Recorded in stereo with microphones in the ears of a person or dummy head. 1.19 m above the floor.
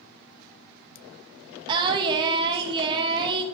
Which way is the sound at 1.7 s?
25° right (ahead or behind).